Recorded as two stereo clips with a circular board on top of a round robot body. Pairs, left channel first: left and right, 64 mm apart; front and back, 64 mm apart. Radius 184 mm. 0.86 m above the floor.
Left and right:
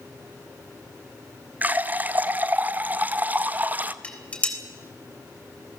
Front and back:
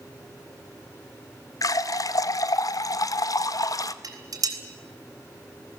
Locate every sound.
1.6 s a running tap: 25° right, 0.9 m
4.0 s dishes clattering: 160° left, 3.5 m